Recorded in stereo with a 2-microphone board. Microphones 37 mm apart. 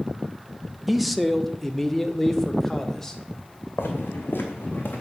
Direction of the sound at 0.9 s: Centre (ahead or behind).